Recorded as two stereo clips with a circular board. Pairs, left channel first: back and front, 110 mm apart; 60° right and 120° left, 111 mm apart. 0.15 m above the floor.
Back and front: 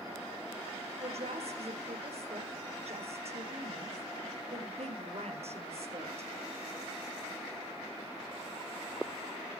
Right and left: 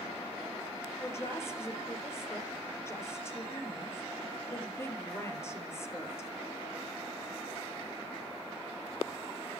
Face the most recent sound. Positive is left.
turn(degrees=5)